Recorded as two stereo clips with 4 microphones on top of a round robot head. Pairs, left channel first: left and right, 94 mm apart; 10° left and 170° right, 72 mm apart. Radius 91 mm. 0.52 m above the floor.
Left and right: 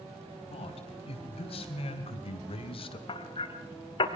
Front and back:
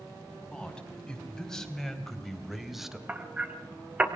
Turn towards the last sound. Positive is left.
turn(degrees=120)